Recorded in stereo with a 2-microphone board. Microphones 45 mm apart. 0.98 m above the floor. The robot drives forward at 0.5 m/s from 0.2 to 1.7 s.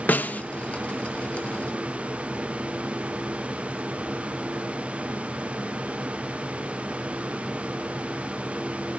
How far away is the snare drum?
About 0.7 m.